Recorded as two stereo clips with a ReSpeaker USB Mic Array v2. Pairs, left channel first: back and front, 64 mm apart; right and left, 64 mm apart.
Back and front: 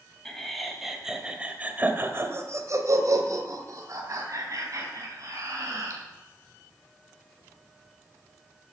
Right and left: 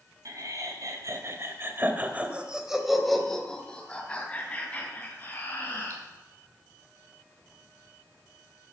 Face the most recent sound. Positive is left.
turn(degrees=-30)